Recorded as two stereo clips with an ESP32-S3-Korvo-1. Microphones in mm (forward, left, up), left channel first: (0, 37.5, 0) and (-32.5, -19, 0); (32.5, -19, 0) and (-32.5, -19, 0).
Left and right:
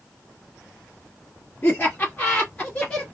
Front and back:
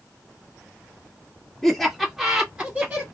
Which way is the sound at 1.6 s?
80° left.